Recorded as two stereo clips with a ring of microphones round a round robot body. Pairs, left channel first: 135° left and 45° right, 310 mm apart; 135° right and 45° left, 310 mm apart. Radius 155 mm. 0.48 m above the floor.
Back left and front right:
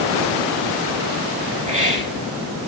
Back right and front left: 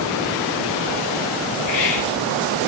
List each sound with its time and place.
1.7 s a hiss: 110° right, 4.5 m